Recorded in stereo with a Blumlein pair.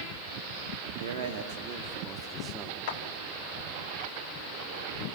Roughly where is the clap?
Ahead left.